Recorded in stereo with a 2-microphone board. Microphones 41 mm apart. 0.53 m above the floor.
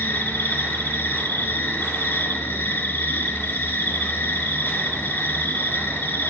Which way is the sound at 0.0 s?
75° left (ahead or behind).